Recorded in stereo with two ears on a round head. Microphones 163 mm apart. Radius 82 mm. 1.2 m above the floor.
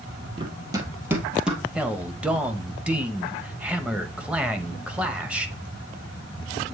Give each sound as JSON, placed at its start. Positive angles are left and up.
{"t": 0.4, "sound": "running footsteps", "side_deg": -25, "distance_m": 1.7}
{"t": 1.8, "sound": "a man speaking", "side_deg": -5, "distance_m": 0.8}